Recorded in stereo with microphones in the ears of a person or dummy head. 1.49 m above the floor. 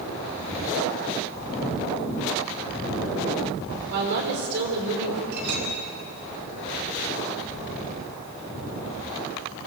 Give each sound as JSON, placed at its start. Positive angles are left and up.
{"t": 3.9, "sound": "a woman speaking", "side_deg": -60, "distance_m": 4.5}
{"t": 5.3, "sound": "a clink", "side_deg": -65, "distance_m": 3.5}